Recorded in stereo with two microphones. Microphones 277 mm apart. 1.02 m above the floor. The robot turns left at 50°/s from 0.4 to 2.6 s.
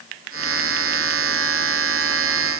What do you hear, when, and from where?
Only background noise.